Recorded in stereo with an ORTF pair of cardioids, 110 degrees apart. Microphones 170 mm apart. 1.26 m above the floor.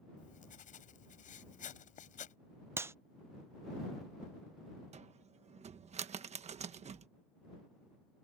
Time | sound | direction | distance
0.2 | writing | 45° left | ?
2.8 | a clap | 15° right | ?
4.9 | a cupboard door | 40° right | ?